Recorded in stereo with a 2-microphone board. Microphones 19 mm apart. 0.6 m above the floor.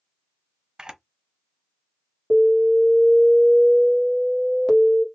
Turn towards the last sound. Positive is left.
turn(degrees=40)  # may be behind; listen again after turning